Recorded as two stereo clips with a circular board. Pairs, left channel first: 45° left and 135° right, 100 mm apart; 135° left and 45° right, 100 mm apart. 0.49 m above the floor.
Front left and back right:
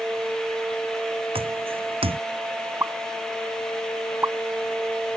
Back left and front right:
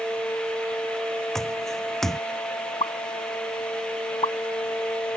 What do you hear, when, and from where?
1.4 s footsteps: 140° right
2.8 s a pop: 160° left